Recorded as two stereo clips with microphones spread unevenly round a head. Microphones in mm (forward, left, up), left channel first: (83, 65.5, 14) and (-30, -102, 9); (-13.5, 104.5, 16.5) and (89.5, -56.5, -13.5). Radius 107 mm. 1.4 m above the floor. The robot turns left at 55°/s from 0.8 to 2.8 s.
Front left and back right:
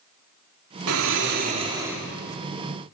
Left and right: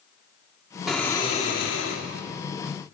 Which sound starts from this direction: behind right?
Snoring, at 0.9 s.